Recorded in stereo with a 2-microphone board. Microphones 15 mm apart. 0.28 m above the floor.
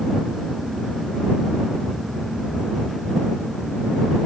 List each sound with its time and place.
Only background noise.